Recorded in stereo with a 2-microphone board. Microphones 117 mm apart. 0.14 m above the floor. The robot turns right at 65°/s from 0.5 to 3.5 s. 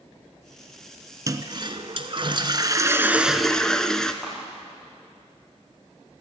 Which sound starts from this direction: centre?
A clap, at 4.2 s.